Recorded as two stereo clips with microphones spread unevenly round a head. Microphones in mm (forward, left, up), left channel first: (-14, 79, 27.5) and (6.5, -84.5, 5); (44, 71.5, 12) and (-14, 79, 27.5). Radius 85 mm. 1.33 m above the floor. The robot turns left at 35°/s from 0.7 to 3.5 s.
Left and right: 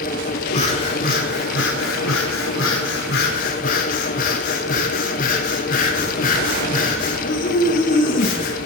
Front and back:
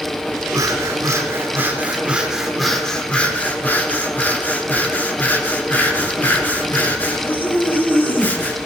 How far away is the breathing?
About 4 m.